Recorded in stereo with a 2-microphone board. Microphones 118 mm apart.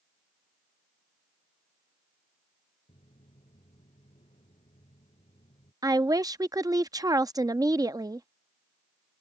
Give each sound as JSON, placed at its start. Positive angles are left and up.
{"t": 2.9, "sound": "footsteps", "side_deg": 60}
{"t": 5.8, "sound": "a woman speaking", "side_deg": -30}